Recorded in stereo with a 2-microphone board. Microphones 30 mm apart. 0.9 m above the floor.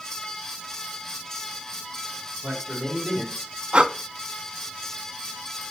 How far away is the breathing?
About 0.6 m.